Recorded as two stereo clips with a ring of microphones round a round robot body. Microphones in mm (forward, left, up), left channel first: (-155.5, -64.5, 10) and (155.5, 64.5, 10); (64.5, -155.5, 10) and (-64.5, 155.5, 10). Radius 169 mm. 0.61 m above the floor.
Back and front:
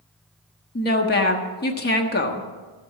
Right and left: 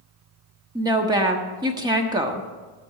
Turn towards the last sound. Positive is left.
turn(degrees=180)